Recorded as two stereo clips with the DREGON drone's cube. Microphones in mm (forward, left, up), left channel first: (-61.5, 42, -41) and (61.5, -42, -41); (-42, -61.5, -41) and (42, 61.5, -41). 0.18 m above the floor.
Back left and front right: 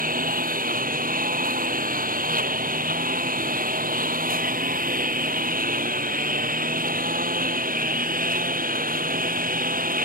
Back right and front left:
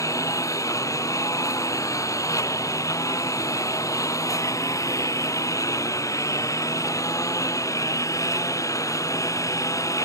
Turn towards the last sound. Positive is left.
turn(degrees=-55)